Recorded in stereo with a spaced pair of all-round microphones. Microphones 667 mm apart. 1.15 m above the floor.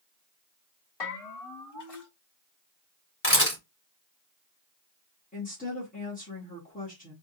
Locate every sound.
1.0 s a bell: 40° left (ahead or behind), 1.9 m
3.2 s a camera shutter: 20° left (ahead or behind), 2 m
5.3 s a woman speaking: 10° left (ahead or behind), 1.5 m